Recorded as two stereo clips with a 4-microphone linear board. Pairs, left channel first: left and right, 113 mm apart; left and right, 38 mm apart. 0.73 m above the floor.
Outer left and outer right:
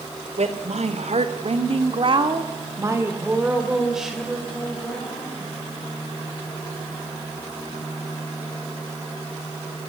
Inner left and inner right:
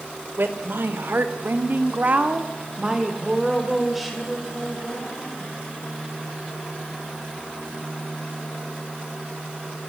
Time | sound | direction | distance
0.4 | a woman speaking | 70° right (ahead or behind) | 3 m